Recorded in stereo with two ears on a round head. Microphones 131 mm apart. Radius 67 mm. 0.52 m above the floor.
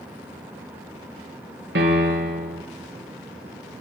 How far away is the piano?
About 3.5 m.